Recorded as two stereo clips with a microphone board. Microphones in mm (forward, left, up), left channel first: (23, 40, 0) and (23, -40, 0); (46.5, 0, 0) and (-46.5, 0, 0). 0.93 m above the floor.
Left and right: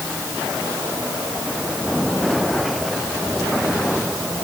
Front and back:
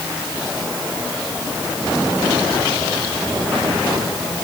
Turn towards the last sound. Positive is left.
No sound to turn to.